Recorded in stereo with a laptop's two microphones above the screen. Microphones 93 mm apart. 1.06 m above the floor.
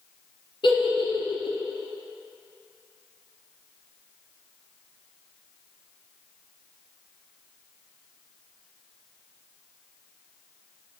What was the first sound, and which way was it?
A giggle, 65° left (ahead or behind).